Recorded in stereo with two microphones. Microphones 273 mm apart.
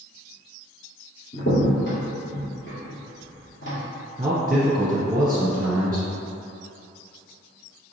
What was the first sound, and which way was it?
A crack, 45° left (ahead or behind).